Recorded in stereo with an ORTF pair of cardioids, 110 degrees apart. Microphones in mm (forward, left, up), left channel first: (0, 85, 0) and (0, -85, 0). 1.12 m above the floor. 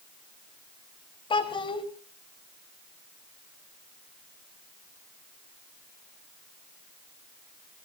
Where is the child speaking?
30° left, 3.5 m.